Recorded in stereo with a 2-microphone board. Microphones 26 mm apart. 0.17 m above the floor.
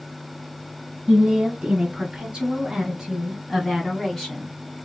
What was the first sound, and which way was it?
A woman speaking, 35° right (ahead or behind).